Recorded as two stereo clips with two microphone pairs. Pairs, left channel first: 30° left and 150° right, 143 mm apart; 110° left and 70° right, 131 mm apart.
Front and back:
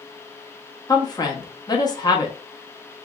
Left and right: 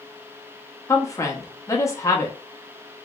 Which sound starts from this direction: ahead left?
A woman speaking, at 0.9 s.